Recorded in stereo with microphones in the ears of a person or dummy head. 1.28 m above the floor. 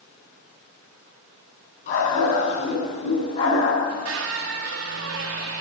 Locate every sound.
1.9 s a dog barking: 45° left (ahead or behind), 5 m; by 3.7 s 35° left (ahead or behind), 4 m
3.8 s a squeak: 70° right (ahead or behind), 1.3 m